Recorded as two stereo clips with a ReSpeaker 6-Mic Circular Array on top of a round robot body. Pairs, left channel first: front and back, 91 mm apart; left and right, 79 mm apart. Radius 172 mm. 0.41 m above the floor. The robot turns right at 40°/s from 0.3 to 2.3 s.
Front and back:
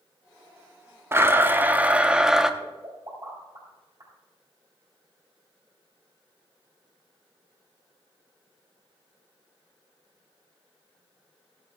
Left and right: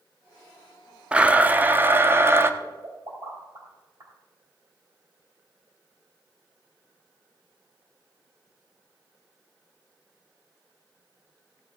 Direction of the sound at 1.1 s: 155° right.